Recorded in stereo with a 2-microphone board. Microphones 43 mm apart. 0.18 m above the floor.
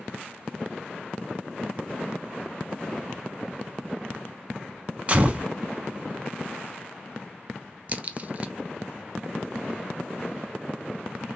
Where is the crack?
35° right (ahead or behind), 0.5 m.